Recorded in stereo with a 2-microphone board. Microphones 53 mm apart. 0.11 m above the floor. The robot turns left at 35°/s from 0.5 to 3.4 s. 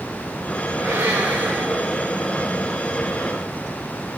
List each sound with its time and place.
0.8 s a blender: 95° right, 3.5 m; by 2.5 s 160° right, 3.5 m